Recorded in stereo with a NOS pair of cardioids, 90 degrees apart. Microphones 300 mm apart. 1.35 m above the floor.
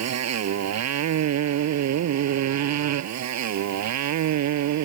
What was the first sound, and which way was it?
A motorcycle, 65° right.